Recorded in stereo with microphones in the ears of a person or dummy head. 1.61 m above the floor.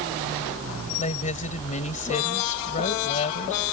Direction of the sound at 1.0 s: 40° left (ahead or behind).